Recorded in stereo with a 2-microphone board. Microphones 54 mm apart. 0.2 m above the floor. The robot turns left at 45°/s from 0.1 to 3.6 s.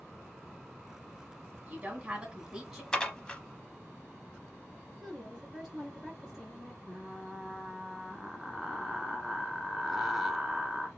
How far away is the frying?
About 0.9 m.